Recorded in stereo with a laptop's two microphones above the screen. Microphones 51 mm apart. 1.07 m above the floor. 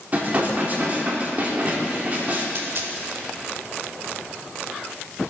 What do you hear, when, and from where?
0.1 s dishes clattering: 35° right (ahead or behind), 1.4 m
2.5 s a dropped coin: 55° right (ahead or behind), 1.1 m